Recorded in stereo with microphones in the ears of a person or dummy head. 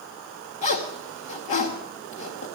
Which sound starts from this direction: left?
A zipper, at 0.6 s.